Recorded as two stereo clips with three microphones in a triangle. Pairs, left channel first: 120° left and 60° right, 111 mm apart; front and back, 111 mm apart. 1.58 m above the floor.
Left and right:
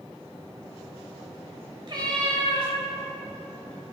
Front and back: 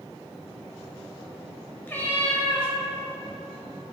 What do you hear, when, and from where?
1.9 s a cat meowing: 65° right, 1.3 m